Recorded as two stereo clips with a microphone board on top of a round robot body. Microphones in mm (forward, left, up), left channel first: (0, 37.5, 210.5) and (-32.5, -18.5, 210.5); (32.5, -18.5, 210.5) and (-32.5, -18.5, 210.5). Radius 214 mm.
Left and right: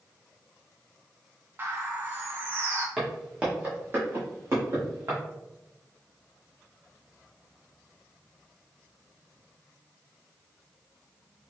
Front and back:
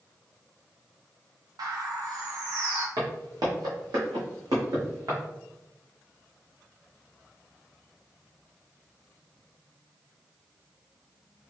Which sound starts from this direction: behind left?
Footsteps, at 3.0 s.